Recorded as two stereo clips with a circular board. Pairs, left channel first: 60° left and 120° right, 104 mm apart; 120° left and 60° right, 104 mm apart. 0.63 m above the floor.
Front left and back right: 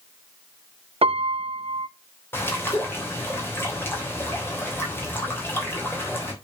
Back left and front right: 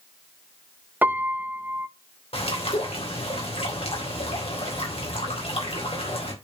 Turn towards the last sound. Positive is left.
turn(degrees=125)